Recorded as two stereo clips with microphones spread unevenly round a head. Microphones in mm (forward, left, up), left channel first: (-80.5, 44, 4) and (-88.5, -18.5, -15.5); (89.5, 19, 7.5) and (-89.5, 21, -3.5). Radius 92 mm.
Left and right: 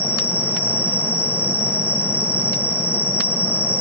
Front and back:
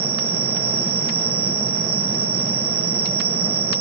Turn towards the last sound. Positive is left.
turn(degrees=140)